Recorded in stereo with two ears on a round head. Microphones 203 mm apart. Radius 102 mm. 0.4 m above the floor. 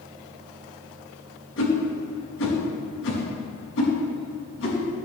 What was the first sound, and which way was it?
A whoosh, 60° left (ahead or behind).